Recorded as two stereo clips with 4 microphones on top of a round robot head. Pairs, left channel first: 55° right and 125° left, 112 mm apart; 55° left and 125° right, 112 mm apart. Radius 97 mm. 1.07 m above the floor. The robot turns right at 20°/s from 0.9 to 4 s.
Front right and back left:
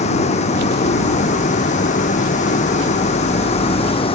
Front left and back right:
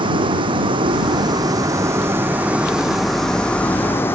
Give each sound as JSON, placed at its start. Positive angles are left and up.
{"t": 0.0, "sound": "a vehicle", "azimuth_deg": -80}